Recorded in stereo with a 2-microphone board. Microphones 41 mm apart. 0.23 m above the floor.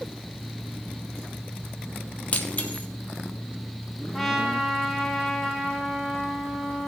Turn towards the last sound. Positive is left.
turn(degrees=5)  # may be behind; listen again after turning